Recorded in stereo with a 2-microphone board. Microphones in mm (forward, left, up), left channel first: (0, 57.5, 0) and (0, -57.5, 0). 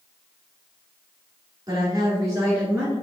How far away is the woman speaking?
About 2.0 m.